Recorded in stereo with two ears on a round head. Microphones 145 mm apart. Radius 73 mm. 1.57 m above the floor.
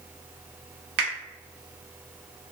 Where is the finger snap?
65° right (ahead or behind), 1.3 m.